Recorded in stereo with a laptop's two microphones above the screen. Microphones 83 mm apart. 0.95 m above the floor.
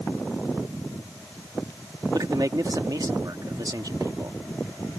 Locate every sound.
2.1 s a man speaking: 50° right (ahead or behind)